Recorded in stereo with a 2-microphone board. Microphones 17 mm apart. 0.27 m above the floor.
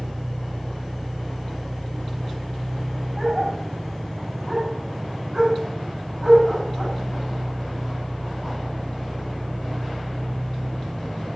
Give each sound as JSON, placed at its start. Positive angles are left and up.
{"t": 0.0, "sound": "an engine running", "side_deg": 25, "distance_m": 6.0}
{"t": 3.2, "sound": "a dog barking", "side_deg": 0, "distance_m": 6.0}